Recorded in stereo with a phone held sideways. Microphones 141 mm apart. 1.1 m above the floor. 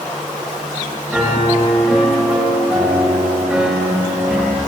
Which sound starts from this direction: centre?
A piano, at 1.1 s.